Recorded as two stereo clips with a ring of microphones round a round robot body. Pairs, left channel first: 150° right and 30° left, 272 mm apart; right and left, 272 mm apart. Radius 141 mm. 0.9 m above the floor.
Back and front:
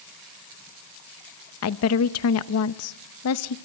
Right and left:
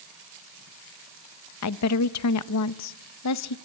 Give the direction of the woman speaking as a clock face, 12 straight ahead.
4 o'clock.